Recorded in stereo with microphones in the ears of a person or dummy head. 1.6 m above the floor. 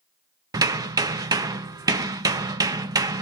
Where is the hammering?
20° right (ahead or behind), 0.6 m.